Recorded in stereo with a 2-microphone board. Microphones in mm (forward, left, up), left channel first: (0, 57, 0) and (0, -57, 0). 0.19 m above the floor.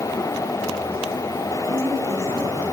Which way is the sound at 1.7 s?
70° right (ahead or behind).